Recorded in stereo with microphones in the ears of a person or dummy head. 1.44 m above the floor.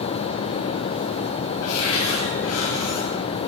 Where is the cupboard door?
75° left (ahead or behind), 2.5 m.